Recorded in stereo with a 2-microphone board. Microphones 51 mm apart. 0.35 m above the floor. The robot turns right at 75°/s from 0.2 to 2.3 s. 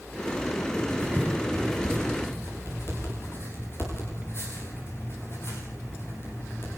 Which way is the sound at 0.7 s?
70° right (ahead or behind).